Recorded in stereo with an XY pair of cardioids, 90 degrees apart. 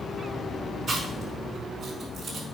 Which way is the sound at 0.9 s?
50° right.